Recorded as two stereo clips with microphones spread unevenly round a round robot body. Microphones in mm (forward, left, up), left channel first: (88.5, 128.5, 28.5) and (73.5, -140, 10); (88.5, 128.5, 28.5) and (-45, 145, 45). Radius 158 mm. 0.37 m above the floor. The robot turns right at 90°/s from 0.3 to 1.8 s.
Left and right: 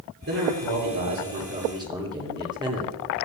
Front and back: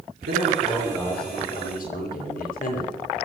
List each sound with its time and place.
0.3 s a man speaking: 155° right, 8 m; by 3.0 s 20° right, 8 m